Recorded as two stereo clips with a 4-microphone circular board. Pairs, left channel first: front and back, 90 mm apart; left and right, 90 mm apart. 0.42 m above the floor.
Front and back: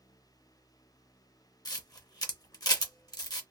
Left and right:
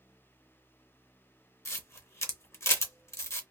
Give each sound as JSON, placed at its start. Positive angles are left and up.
{"t": 1.6, "sound": "a camera shutter", "azimuth_deg": 35, "distance_m": 0.7}